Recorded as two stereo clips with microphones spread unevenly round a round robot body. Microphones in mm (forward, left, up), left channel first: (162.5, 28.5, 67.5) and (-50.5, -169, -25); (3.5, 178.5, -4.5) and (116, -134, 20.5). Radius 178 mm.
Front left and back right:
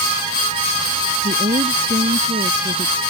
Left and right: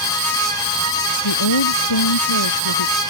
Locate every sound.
1.2 s a woman speaking: 145° left